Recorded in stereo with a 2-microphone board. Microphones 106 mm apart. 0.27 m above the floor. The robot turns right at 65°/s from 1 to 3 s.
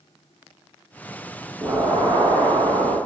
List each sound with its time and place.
1.6 s an explosion: 155° right, 0.8 m; by 3.0 s 65° right, 0.8 m